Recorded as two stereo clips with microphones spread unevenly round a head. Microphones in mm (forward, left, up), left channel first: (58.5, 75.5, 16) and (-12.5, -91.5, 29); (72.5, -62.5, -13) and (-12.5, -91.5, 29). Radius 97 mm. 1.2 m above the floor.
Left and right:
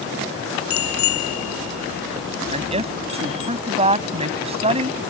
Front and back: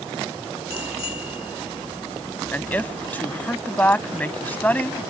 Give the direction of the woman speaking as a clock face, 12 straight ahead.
2 o'clock.